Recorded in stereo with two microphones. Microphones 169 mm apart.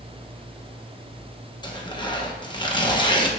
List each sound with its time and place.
1.6 s tearing paper: 25° left (ahead or behind), 0.9 m